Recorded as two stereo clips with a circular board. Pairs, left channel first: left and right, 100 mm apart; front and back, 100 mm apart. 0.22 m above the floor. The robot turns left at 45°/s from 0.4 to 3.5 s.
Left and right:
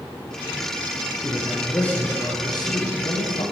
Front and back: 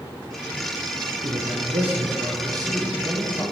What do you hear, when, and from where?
1.2 s a man speaking: 165° right, 8.5 m; by 3.4 s 95° left, 8.5 m